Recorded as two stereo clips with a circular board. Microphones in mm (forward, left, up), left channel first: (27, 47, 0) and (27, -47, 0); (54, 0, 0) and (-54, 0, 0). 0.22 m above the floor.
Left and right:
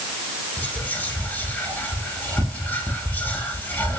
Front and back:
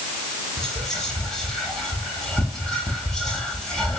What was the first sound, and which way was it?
Whispering, 75° left.